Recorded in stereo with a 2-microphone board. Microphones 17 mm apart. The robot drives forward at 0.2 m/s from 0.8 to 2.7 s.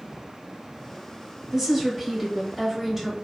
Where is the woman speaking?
15° right (ahead or behind), 1.0 m.